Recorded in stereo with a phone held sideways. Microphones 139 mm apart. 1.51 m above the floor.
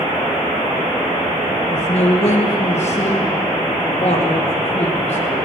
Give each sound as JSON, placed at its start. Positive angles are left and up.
{"t": 1.7, "sound": "a man speaking", "side_deg": 55, "distance_m": 1.9}